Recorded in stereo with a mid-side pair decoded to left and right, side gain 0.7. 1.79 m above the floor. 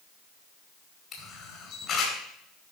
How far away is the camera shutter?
About 4.5 m.